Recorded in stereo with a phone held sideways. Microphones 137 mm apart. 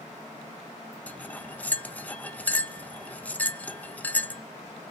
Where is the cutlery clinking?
10° left (ahead or behind), 0.5 m.